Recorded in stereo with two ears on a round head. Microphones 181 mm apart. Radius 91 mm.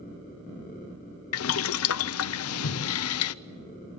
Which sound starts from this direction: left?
Boiling, at 1.3 s.